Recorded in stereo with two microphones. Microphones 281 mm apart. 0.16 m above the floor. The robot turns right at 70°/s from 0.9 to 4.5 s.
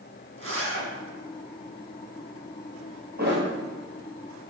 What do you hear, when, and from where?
0.4 s a zipper: 50° right (ahead or behind), 1.3 m
3.2 s a thud: 35° right (ahead or behind), 1.4 m; by 3.5 s 50° right (ahead or behind), 1.4 m